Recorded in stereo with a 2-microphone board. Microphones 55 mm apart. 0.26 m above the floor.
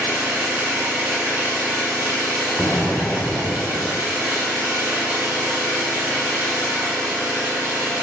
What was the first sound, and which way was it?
An engine running, 40° right (ahead or behind).